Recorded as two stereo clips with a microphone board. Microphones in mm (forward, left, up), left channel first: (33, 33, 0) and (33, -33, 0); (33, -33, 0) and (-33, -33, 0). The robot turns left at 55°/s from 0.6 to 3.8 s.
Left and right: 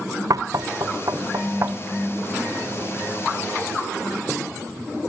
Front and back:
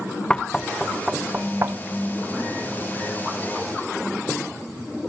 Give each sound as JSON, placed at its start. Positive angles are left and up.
{"t": 0.3, "sound": "knocking", "azimuth_deg": -75, "distance_m": 0.5}